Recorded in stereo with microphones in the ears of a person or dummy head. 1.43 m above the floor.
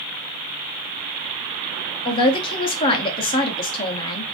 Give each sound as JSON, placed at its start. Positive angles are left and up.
{"t": 2.0, "sound": "a man speaking", "side_deg": 30, "distance_m": 0.7}